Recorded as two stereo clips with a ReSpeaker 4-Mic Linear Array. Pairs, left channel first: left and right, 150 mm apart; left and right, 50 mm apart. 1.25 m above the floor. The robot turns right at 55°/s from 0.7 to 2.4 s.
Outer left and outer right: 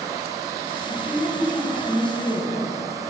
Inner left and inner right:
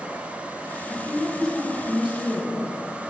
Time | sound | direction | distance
0.9 | a woman speaking | 135° left | 1.8 m